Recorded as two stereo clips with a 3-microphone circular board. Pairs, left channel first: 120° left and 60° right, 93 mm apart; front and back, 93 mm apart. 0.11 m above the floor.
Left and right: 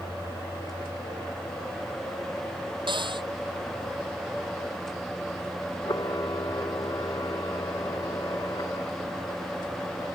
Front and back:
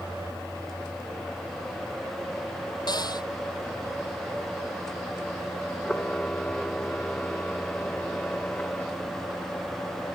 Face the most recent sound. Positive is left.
turn(degrees=75)